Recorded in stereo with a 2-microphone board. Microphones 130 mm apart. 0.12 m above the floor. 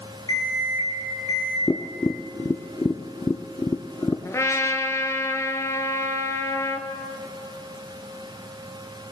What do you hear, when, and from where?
0.3 s an alarm clock: 30° left (ahead or behind), 3 m
1.7 s tapping: 25° left (ahead or behind), 0.5 m
4.2 s a trumpet: 25° left (ahead or behind), 0.8 m